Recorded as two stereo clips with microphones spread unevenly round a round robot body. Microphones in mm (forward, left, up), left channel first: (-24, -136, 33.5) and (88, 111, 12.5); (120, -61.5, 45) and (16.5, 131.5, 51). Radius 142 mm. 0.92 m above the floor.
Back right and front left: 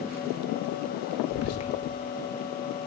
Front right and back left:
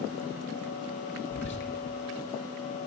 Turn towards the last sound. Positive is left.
turn(degrees=-85)